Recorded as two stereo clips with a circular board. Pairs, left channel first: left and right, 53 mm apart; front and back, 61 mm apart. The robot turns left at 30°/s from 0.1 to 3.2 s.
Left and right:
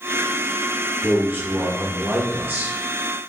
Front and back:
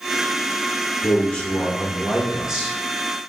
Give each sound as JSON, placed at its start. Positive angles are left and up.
{"t": 1.0, "sound": "a man speaking", "azimuth_deg": -60, "distance_m": 1.1}